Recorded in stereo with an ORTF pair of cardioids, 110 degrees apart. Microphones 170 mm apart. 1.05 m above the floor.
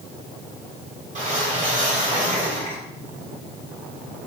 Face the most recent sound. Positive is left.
turn(degrees=-45)